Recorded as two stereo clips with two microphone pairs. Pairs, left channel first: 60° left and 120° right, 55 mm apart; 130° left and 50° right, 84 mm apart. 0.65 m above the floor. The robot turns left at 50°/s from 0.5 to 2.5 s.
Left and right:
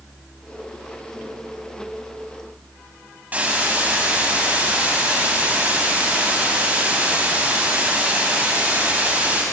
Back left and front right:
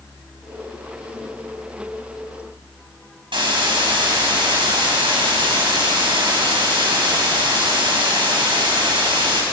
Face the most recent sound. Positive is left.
turn(degrees=-55)